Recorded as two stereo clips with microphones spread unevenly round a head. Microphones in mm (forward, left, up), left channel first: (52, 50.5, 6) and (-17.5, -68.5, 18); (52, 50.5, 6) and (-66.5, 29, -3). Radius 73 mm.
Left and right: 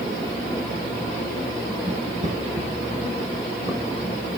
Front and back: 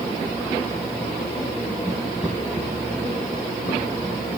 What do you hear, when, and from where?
1.9 s footsteps: 95° right, 3.5 m; by 4.1 s 40° right, 2.5 m